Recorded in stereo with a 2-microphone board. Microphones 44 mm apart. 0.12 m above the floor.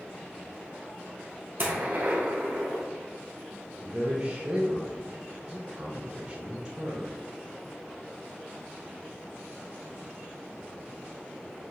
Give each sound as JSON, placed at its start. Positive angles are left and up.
{"t": 1.6, "sound": "a gunshot", "side_deg": -50, "distance_m": 1.7}
{"t": 3.8, "sound": "a man speaking", "side_deg": -30, "distance_m": 1.7}